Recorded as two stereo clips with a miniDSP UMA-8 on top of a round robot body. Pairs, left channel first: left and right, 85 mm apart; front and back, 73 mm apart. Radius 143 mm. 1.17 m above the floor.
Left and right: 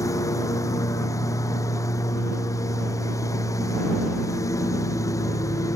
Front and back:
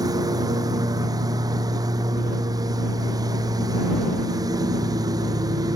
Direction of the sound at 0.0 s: 145° left.